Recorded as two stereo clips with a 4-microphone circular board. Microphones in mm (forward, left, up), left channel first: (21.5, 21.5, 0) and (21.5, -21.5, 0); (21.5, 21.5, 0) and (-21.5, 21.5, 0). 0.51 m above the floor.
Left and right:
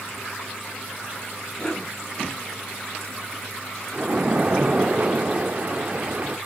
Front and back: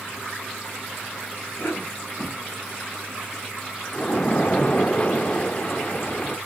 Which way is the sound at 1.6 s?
20° left.